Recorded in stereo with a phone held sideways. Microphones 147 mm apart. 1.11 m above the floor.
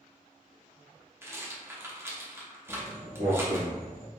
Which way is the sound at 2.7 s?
55° right (ahead or behind).